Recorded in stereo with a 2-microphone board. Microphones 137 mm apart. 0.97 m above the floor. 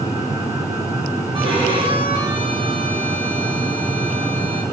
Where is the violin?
40° right (ahead or behind), 9 m.